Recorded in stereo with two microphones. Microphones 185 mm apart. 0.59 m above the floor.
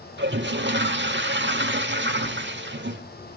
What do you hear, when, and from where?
0.2 s a toilet flushing: 80° right, 0.9 m